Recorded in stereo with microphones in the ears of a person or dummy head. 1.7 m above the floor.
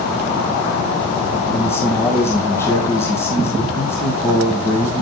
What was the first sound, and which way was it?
A man speaking, 10° left (ahead or behind).